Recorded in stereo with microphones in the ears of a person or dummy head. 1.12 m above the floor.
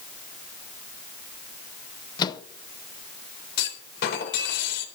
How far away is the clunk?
About 3.5 m.